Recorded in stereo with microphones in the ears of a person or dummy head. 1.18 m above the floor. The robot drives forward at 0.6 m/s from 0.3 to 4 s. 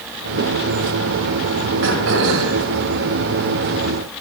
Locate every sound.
1.8 s throat clearing: 75° right (ahead or behind), 2.5 m; by 2.6 s 80° right, 2.5 m